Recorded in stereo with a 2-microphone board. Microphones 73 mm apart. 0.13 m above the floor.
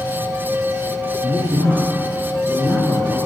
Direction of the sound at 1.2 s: 20° right (ahead or behind).